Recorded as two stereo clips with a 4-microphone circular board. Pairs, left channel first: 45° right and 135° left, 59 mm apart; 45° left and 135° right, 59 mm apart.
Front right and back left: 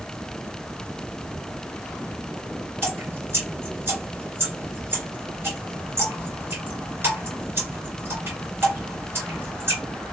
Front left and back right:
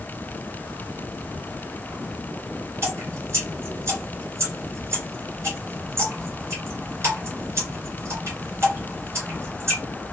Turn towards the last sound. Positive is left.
turn(degrees=180)